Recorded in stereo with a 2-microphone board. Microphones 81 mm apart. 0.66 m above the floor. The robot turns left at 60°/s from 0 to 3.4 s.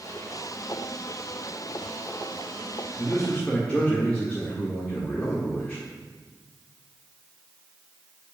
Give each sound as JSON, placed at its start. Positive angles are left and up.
{"t": 3.0, "sound": "a man speaking", "side_deg": 40, "distance_m": 1.7}